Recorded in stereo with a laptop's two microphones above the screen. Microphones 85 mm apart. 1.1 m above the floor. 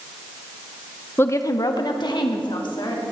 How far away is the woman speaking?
About 0.6 m.